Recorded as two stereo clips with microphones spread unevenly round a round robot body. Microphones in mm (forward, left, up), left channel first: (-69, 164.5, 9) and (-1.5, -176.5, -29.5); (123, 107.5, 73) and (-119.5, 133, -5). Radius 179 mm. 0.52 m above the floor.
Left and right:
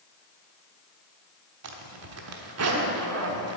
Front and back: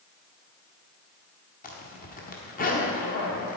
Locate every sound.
1.6 s a zipper: 75° right, 1.1 m